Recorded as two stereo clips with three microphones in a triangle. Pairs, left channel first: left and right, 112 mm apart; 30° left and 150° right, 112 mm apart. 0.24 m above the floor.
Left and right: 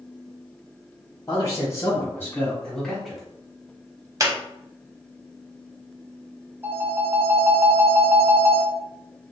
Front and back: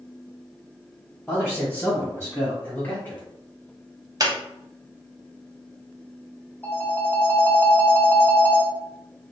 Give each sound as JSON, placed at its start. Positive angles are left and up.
{"t": 1.3, "sound": "a man speaking", "azimuth_deg": 90, "distance_m": 1.4}
{"t": 4.2, "sound": "a squeak", "azimuth_deg": -125, "distance_m": 0.5}
{"t": 6.6, "sound": "a phone ringing", "azimuth_deg": -30, "distance_m": 0.7}